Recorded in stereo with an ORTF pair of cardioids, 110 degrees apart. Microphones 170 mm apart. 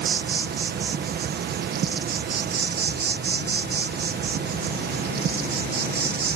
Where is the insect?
70° right.